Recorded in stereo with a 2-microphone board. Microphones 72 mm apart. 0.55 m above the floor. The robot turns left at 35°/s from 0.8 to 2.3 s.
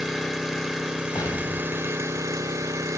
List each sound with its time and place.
0.0 s an engine running: 5° right, 1.1 m; by 3.0 s 60° right, 1.1 m
1.1 s an explosion: 130° left, 1.7 m; by 2.3 s 90° left, 1.7 m